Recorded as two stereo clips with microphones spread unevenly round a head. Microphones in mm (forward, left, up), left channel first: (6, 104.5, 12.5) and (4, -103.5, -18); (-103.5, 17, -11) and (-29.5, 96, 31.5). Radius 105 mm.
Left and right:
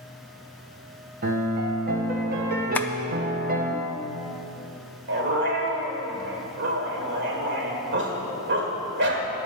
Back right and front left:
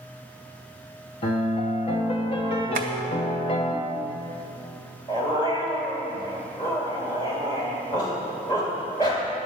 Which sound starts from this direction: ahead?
Tapping, at 2.8 s.